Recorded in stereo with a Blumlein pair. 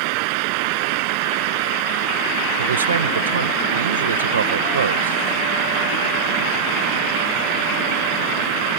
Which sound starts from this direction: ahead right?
A fan, at 0.0 s.